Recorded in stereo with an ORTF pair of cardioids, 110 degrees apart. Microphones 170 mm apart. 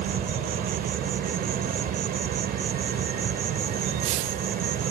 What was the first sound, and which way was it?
An insect, 65° right.